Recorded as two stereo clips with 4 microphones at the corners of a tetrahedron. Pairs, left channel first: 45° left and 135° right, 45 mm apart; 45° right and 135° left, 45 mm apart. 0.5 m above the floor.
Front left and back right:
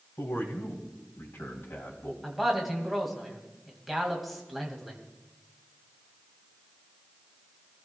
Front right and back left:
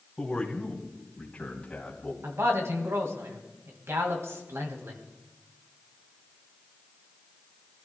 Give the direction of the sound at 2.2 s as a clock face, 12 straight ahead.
7 o'clock.